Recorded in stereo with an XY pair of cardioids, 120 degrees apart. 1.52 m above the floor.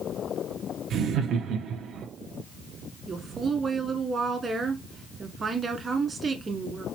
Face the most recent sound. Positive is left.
turn(degrees=-35)